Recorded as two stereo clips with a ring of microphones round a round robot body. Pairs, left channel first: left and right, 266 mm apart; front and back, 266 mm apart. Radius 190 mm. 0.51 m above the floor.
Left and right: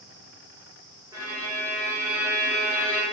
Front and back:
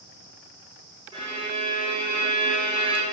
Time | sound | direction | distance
1.1 | a violin | 145° right | 1.0 m